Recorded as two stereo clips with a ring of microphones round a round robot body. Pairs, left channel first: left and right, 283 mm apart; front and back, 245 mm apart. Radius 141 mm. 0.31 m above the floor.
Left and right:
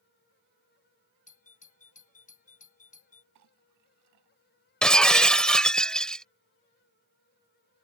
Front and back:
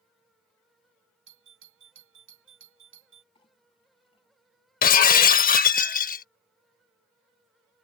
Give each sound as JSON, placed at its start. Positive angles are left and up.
{"t": 1.3, "sound": "a doorbell", "azimuth_deg": 150}
{"t": 3.4, "sound": "a clink", "azimuth_deg": -70}
{"t": 4.8, "sound": "breaking glass", "azimuth_deg": 5}